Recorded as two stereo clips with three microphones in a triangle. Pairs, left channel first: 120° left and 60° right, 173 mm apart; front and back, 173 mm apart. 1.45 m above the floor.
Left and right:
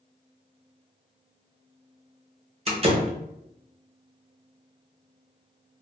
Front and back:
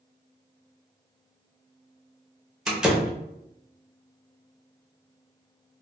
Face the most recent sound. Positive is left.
turn(degrees=-95)